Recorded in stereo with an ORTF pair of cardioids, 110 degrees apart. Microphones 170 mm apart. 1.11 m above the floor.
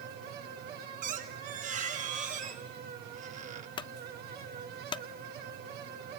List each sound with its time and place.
0.0 s a fan: 65° right, 1.9 m
1.0 s a squeak: 50° right, 1.3 m
3.8 s a clunk: 30° left, 0.5 m